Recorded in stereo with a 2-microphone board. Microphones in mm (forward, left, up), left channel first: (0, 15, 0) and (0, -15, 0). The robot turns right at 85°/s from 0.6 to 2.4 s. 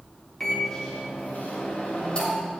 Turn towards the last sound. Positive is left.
turn(degrees=170)